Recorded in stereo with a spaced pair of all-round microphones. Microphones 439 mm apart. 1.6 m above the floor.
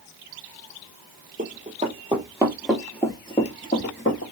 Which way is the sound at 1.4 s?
20° right (ahead or behind).